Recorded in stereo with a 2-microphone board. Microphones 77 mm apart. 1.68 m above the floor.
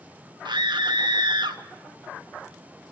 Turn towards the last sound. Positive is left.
turn(degrees=-75)  # may be behind; listen again after turning